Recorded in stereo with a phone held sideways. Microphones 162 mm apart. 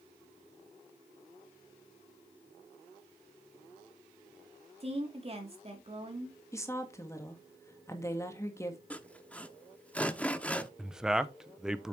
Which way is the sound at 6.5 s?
20° left (ahead or behind).